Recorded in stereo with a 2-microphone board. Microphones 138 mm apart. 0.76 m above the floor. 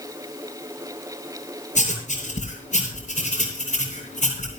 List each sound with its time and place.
1.8 s writing: 60° left (ahead or behind), 7 m